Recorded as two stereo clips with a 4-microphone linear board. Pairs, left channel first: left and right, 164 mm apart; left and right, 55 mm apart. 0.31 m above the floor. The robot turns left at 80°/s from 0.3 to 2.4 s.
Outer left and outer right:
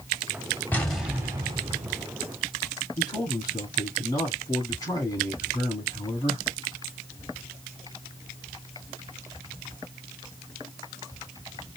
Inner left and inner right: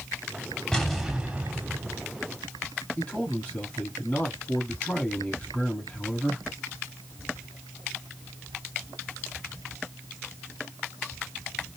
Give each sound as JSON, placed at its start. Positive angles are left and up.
{"t": 0.7, "sound": "an explosion", "azimuth_deg": 20, "distance_m": 1.3}
{"t": 3.0, "sound": "a man speaking", "side_deg": 25, "distance_m": 3.0}